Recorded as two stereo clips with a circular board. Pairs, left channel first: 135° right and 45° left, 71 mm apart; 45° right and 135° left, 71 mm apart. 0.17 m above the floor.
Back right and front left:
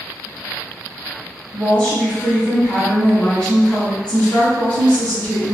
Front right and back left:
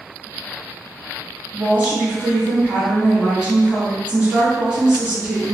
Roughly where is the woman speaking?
Behind.